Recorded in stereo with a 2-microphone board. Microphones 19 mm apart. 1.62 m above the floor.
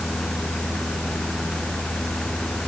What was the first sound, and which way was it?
Only background noise.